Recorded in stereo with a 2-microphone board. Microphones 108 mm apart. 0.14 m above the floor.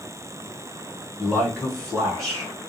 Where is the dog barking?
I don't hear a dog barking.